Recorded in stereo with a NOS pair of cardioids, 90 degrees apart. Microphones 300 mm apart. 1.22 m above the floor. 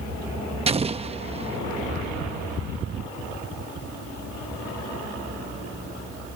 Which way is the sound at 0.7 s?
20° right.